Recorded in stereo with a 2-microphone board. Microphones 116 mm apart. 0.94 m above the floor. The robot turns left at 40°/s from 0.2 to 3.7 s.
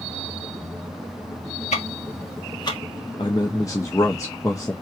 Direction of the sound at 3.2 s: 45° left (ahead or behind).